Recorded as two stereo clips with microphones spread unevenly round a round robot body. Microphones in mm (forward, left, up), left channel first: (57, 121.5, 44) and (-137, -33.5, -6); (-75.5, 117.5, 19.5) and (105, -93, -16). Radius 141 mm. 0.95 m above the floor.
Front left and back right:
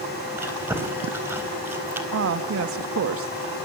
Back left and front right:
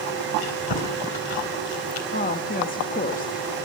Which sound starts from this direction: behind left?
Chewing, at 0.4 s.